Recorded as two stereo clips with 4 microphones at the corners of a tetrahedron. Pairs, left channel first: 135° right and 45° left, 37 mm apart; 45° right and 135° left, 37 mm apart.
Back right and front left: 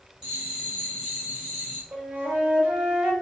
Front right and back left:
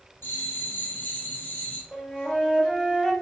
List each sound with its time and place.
0.2 s a bell: 25° right, 1.9 m
1.9 s a flute: 15° left, 2.0 m